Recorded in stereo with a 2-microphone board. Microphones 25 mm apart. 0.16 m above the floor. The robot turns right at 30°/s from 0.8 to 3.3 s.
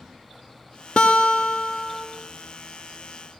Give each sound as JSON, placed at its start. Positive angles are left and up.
{"t": 1.0, "sound": "a guitar", "azimuth_deg": 130, "distance_m": 0.7}